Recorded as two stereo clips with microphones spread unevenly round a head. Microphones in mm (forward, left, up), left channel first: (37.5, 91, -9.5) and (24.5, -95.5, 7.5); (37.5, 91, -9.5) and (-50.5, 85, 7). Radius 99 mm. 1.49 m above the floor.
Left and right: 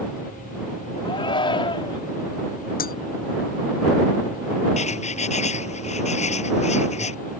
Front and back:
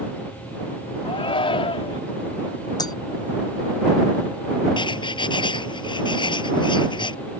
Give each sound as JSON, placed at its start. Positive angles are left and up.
{"t": 1.1, "sound": "a shout", "azimuth_deg": 20}
{"t": 2.8, "sound": "breaking glass", "azimuth_deg": 45}
{"t": 4.8, "sound": "writing", "azimuth_deg": 30}